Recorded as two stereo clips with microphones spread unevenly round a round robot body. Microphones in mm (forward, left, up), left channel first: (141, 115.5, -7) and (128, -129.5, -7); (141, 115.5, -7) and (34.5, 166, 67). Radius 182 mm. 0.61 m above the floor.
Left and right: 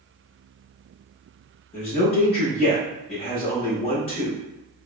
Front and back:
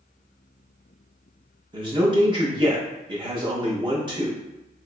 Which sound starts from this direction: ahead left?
A man speaking, at 1.7 s.